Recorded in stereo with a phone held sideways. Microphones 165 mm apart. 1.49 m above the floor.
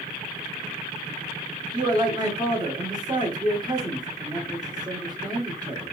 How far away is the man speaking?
About 1.0 m.